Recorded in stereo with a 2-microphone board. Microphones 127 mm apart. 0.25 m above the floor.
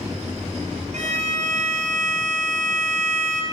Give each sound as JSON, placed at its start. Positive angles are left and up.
{"t": 0.9, "sound": "a violin", "side_deg": -75, "distance_m": 2.0}